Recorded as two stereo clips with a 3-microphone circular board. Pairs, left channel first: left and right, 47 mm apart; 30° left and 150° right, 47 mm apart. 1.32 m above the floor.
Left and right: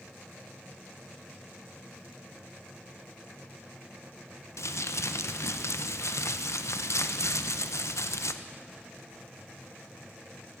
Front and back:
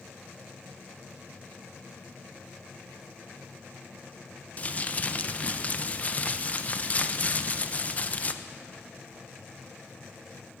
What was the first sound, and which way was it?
Crumpling, 90° left.